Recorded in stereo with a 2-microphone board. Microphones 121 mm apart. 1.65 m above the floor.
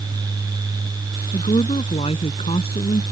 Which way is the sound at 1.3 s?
55° left (ahead or behind).